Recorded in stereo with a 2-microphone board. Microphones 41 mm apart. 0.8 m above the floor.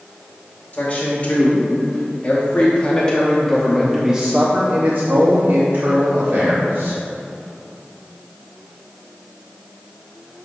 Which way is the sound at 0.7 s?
45° left (ahead or behind).